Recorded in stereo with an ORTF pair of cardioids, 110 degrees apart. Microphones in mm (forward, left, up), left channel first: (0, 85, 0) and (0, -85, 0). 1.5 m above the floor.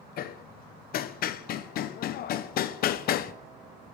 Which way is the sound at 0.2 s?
60° left.